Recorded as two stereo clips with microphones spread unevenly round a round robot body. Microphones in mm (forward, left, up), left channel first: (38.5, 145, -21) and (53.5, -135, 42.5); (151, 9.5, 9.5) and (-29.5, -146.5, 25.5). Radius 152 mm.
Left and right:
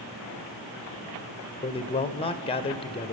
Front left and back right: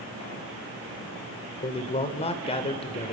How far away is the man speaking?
About 1.3 m.